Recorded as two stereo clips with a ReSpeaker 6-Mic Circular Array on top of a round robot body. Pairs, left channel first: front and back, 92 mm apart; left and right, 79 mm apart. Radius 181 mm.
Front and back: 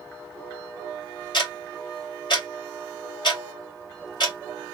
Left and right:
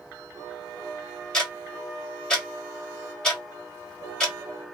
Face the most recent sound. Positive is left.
turn(degrees=10)